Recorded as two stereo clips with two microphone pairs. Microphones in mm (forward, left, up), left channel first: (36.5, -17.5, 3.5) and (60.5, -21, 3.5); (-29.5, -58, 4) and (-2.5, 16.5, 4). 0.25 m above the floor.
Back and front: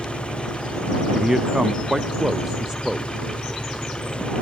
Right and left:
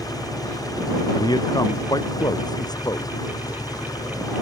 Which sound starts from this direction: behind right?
An engine running, at 0.0 s.